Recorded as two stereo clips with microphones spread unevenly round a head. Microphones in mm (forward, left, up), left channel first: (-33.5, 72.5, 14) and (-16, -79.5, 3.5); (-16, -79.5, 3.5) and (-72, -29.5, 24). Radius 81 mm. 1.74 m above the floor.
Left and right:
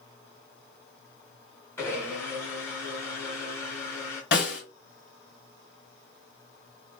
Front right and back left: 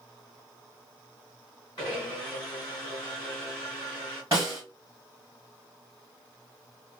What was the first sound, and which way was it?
A blender, 20° left.